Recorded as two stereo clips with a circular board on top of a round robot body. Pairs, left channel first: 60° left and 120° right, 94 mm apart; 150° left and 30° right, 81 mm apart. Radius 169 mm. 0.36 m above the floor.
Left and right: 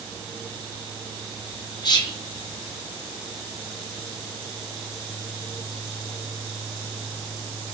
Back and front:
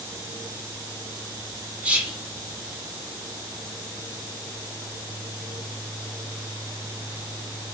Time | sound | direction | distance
1.8 | whispering | 40° left | 1.5 m